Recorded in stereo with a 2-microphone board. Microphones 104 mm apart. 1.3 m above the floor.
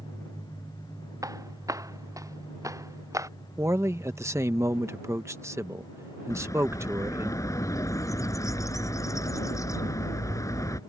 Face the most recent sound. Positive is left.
turn(degrees=30)  # may be behind; listen again after turning